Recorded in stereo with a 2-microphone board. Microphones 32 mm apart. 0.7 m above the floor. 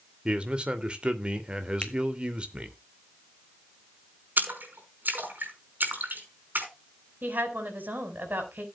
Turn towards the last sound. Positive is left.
turn(degrees=-70)  # may be behind; listen again after turning